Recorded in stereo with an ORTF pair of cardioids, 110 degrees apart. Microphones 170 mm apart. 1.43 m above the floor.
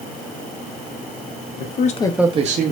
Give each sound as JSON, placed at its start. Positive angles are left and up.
{"t": 1.6, "sound": "a man speaking", "azimuth_deg": 65, "distance_m": 0.9}